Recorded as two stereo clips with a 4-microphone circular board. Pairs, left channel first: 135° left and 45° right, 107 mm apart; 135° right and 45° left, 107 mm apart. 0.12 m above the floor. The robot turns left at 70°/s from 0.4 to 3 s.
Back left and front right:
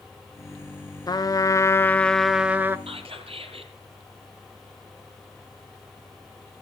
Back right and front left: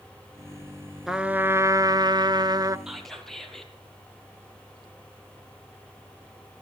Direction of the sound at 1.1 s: 130° left.